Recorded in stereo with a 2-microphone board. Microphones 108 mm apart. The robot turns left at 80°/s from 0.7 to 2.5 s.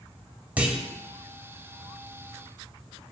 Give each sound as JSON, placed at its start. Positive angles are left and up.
{"t": 0.6, "sound": "a clunk", "side_deg": -15, "distance_m": 0.6}